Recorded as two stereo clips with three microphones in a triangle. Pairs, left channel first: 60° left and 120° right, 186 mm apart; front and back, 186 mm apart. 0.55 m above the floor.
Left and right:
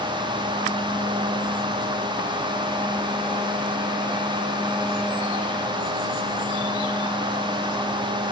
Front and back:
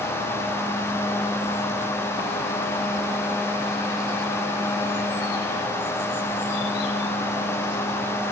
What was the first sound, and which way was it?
Only background noise.